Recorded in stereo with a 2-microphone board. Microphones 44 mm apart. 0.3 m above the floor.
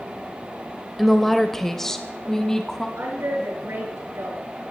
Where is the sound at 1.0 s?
Centre (ahead or behind), 0.9 m; by 2.9 s 15° left (ahead or behind), 1.7 m.